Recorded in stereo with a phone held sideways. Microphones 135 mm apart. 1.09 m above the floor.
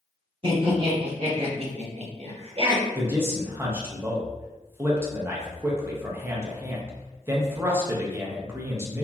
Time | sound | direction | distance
0.4 | laughter | 40° right (ahead or behind) | 1.8 m
3.0 | a man speaking | 15° right (ahead or behind) | 0.5 m